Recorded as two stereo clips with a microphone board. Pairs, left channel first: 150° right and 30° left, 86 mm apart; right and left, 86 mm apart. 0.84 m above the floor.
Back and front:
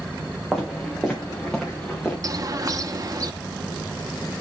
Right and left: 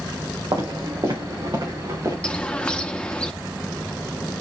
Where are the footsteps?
120° left, 3 m; by 2.1 s 135° left, 3.5 m.